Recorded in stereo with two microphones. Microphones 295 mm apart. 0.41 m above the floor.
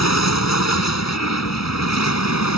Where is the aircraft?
70° left (ahead or behind).